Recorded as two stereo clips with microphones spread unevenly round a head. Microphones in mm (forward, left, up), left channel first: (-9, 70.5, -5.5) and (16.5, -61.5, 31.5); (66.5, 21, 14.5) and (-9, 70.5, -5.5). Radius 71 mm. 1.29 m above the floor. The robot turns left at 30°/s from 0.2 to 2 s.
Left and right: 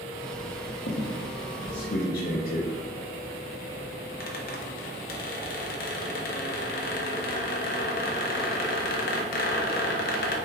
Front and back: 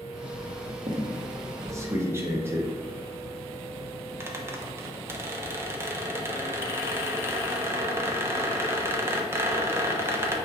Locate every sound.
0.9 s a squeak: 115° left, 0.6 m; by 10.4 s 80° left, 0.6 m